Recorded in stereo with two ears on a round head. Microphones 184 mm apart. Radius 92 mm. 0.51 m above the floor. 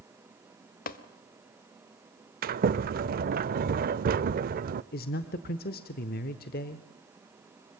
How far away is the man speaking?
About 1.1 m.